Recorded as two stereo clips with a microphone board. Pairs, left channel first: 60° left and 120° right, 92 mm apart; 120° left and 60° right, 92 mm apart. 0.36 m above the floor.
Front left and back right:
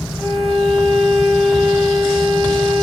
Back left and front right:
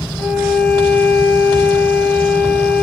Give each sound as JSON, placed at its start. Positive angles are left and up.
{"t": 0.2, "sound": "a violin", "azimuth_deg": 135, "distance_m": 0.9}